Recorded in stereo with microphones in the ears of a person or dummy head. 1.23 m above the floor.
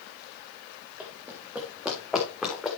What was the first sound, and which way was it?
Running footsteps, 5° right (ahead or behind).